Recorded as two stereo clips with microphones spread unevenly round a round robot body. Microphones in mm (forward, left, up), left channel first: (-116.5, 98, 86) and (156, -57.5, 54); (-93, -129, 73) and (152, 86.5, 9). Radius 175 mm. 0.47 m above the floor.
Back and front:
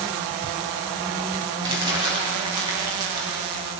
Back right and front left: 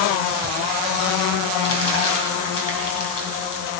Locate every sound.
1.6 s crumpling: 105° right, 3 m